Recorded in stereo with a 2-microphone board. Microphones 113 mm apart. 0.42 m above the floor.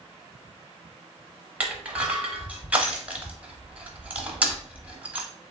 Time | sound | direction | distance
1.6 | crushing | 15° right (ahead or behind) | 0.9 m